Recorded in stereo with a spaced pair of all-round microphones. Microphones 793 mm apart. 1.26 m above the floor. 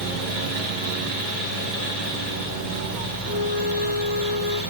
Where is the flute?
20° right (ahead or behind), 0.6 m.